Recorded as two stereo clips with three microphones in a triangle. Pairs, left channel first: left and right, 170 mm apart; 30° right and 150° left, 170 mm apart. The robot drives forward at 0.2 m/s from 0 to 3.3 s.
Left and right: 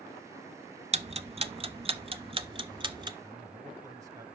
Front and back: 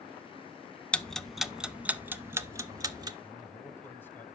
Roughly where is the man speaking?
Right.